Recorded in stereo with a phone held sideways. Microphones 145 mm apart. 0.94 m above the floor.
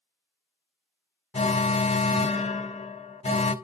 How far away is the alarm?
About 0.5 m.